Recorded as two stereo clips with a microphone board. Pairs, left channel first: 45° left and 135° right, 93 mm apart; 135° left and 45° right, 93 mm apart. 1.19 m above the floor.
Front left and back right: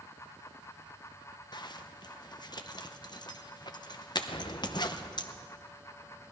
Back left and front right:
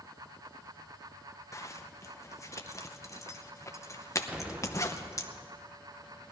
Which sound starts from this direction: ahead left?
An explosion, at 4.3 s.